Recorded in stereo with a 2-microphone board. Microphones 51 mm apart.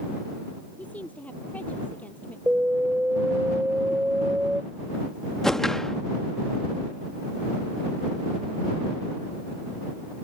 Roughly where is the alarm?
Right.